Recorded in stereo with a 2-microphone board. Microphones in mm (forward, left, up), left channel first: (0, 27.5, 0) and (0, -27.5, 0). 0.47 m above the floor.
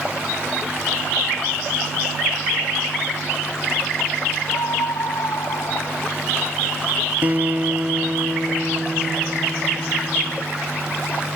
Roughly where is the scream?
Left.